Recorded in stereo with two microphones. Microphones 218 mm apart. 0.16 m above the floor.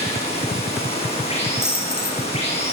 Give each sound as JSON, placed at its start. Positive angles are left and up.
{"t": 0.0, "sound": "running water", "side_deg": 30, "distance_m": 6.5}
{"t": 1.6, "sound": "a dropped coin", "side_deg": -50, "distance_m": 4.0}